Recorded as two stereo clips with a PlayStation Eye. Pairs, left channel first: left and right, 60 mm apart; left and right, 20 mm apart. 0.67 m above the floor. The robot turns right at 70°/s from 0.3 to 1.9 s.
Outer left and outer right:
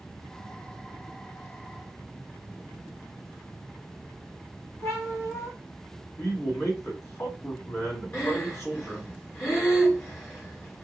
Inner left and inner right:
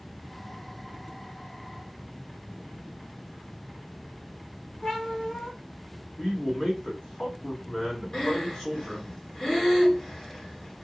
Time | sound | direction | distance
4.8 | a cat meowing | 45° left (ahead or behind) | 1.8 m
6.2 | a man speaking | 50° left (ahead or behind) | 2.5 m
8.1 | breathing | 40° left (ahead or behind) | 1.9 m